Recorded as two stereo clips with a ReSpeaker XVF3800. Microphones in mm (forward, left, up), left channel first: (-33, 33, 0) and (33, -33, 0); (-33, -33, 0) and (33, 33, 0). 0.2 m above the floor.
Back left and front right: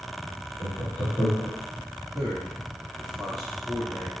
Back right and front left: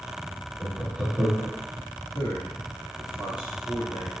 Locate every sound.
0.6 s laughter: 105° left, 1.3 m
2.1 s a man speaking: 130° right, 2 m